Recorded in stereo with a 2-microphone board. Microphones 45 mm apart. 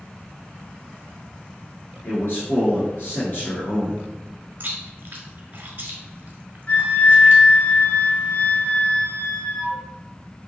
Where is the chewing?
40° right (ahead or behind), 1.3 m.